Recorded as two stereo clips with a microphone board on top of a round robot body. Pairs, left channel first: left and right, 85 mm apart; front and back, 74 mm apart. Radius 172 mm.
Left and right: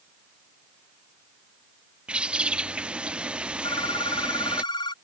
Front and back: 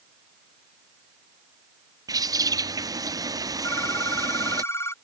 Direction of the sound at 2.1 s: 165° right.